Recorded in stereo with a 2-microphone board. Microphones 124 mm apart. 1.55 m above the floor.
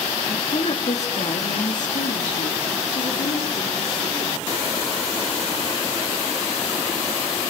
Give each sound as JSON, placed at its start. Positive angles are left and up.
{"t": 0.3, "sound": "a woman speaking", "side_deg": 50, "distance_m": 3.5}